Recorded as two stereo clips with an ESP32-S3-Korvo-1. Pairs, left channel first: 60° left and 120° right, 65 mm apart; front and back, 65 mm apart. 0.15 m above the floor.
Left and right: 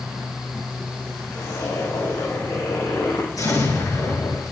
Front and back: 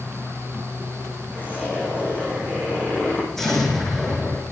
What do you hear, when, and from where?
1.3 s a zipper: 60° left, 6 m
3.4 s an explosion: 85° left, 7.5 m